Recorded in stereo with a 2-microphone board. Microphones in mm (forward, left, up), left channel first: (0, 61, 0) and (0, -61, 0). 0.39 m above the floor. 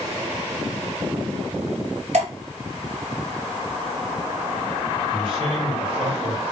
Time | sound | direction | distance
2.1 | dripping | 65° right (ahead or behind) | 1.2 m
5.1 | a man speaking | 45° right (ahead or behind) | 1.9 m